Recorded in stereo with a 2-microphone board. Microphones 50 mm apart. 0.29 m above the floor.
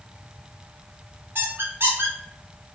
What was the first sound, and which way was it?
A squeak, 45° right (ahead or behind).